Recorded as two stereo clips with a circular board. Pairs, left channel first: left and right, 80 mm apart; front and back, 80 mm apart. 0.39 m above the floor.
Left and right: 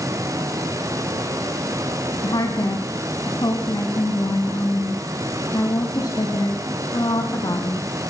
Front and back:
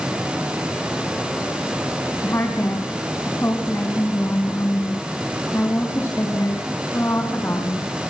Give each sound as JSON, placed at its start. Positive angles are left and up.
{"t": 2.2, "sound": "a woman speaking", "azimuth_deg": 60, "distance_m": 3.0}